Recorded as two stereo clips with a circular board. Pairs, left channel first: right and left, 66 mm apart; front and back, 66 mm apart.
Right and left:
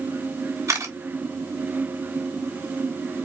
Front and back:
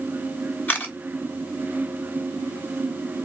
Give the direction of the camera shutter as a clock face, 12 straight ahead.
10 o'clock.